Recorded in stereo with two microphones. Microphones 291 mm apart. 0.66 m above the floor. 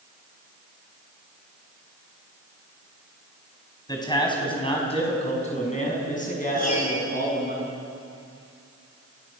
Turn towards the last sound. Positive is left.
turn(degrees=60)  # may be behind; listen again after turning